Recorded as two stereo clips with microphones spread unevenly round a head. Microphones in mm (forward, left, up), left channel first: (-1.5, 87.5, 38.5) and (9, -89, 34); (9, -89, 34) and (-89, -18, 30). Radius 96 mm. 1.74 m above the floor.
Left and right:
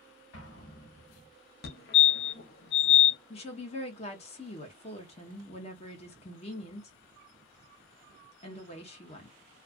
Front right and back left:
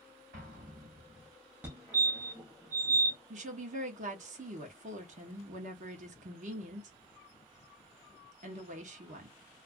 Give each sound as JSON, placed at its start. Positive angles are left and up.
{"t": 0.3, "sound": "an explosion", "azimuth_deg": 120, "distance_m": 1.2}
{"t": 1.6, "sound": "a fire alarm", "azimuth_deg": 70, "distance_m": 0.7}
{"t": 3.3, "sound": "a woman speaking", "azimuth_deg": 145, "distance_m": 0.8}